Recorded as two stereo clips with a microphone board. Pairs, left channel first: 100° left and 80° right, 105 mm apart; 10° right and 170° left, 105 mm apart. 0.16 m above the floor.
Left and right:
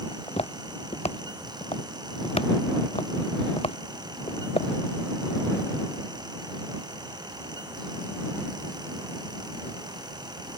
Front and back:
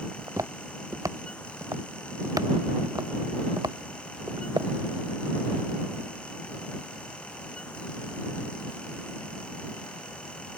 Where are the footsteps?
110° left; by 4.7 s 120° left.